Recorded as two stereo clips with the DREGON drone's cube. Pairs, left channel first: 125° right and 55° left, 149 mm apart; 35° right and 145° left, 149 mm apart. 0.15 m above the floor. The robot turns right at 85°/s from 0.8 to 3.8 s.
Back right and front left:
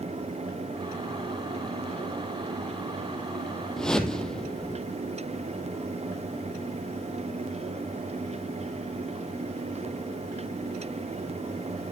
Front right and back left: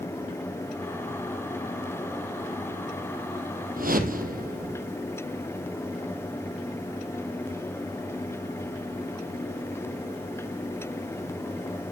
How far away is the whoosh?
About 1.6 m.